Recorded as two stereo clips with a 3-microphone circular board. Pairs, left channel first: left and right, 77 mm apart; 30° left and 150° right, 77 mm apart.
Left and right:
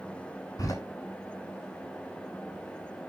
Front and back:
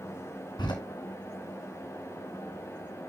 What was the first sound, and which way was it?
A door slam, 50° left.